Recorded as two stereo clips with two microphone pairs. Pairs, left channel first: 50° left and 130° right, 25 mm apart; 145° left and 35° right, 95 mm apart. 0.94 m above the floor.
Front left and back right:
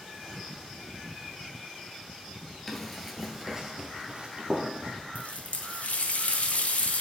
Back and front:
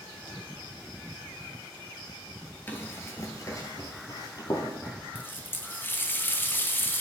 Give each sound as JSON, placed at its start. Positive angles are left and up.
{"t": 2.7, "sound": "running footsteps", "azimuth_deg": 105, "distance_m": 1.0}
{"t": 5.2, "sound": "a running tap", "azimuth_deg": 80, "distance_m": 0.5}